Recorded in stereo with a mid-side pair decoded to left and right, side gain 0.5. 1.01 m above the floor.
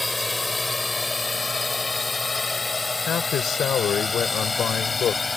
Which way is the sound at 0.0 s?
10° left.